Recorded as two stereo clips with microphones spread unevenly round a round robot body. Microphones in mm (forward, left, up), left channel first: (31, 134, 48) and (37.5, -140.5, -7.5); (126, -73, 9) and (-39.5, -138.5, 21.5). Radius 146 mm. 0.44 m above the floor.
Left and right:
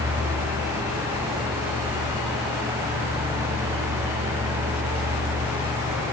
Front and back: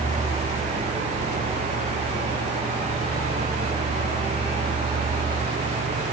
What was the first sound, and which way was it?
Only background noise.